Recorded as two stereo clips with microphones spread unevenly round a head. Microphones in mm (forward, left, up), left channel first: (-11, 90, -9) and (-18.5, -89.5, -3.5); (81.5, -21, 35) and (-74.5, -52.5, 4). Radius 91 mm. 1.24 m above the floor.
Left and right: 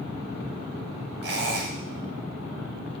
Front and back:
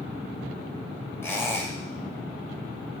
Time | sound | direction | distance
1.2 | a squeak | 60° right | 1.4 m